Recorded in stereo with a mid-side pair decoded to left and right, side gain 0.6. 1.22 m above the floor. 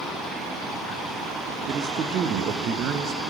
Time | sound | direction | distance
1.7 | a man speaking | 50° right | 0.7 m